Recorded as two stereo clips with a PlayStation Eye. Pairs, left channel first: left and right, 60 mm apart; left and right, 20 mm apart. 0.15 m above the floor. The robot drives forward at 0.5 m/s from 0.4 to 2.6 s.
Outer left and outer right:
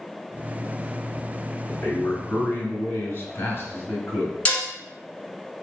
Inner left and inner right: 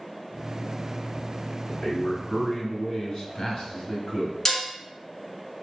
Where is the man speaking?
35° left (ahead or behind), 1.9 m.